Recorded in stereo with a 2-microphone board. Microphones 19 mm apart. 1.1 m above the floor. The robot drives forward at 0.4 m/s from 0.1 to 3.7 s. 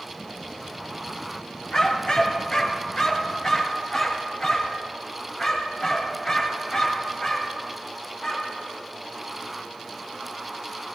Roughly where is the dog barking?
Left.